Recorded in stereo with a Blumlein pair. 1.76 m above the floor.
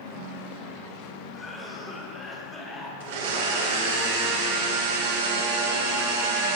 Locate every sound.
1.3 s a cough: 10° left, 1.4 m
3.0 s a blender: 55° right, 1.2 m